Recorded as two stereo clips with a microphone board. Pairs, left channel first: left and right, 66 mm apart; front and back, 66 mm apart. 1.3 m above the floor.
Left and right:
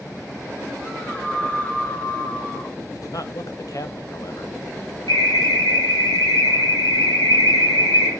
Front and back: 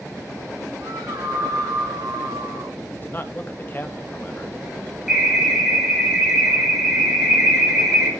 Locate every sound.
0.8 s a scream: 160° left, 1.9 m
2.9 s a man speaking: 60° left, 1.6 m
5.1 s an alarm: 95° left, 7 m